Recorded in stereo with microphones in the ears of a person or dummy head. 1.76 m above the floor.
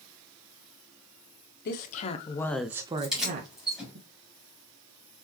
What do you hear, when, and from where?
1.6 s a woman speaking: 50° left (ahead or behind), 1.0 m; by 4.0 s 60° right (ahead or behind), 1.3 m
3.0 s keys jangling: centre (ahead or behind), 3 m